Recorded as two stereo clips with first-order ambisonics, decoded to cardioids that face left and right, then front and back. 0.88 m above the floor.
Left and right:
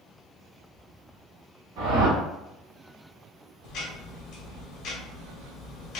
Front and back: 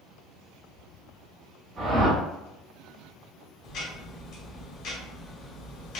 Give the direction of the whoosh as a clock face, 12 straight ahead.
4 o'clock.